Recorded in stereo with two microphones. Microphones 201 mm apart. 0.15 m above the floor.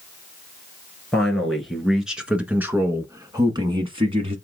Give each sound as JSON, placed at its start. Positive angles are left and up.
{"t": 1.1, "sound": "a man speaking", "side_deg": 5, "distance_m": 2.0}